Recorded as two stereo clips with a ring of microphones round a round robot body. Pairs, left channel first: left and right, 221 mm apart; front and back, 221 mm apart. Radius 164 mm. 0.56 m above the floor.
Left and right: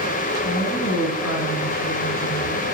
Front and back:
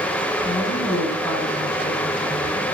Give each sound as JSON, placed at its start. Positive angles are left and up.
{"t": 0.4, "sound": "a woman speaking", "azimuth_deg": 85, "distance_m": 6.5}